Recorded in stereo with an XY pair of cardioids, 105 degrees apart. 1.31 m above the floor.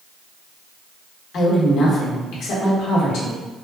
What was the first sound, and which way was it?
A woman speaking, 70° left.